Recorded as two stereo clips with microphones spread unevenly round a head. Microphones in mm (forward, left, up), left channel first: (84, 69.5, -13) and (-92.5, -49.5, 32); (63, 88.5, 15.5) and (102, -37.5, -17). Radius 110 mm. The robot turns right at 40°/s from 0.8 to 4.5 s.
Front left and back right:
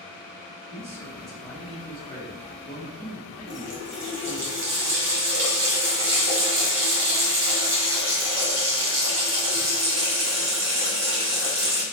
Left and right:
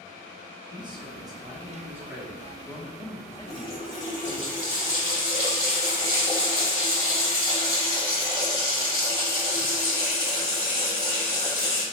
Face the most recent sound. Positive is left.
turn(degrees=180)